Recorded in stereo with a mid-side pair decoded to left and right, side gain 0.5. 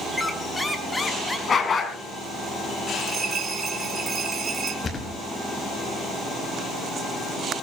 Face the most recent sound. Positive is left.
turn(degrees=30)